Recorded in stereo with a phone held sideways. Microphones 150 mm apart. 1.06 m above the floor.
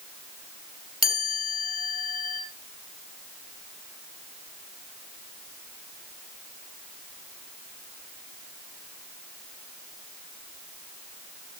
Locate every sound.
1.0 s a chime: 80° left, 3 m